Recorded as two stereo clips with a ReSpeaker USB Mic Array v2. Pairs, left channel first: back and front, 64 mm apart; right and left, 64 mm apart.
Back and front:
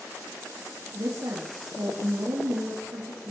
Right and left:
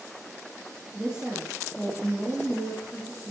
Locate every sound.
0.9 s a woman speaking: 10° left, 4 m